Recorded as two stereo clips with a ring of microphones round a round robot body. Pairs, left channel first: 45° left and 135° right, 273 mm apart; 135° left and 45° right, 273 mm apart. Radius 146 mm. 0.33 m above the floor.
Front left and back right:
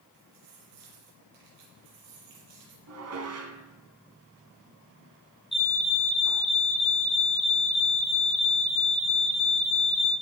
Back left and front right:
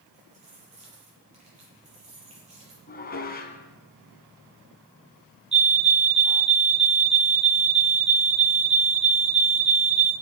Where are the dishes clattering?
170° right, 2 m.